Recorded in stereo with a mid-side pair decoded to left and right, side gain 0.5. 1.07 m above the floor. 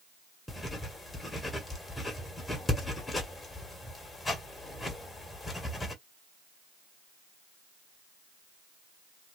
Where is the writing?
20° left, 1.6 m.